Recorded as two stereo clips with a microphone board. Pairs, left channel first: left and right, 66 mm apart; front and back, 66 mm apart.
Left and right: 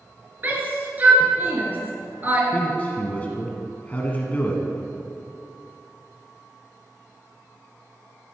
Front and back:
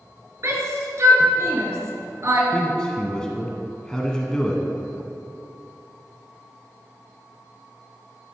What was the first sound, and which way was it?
A shout, 150° right.